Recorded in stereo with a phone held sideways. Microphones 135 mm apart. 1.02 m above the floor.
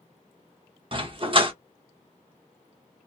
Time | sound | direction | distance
0.9 | a dog barking | 40° right (ahead or behind) | 0.9 m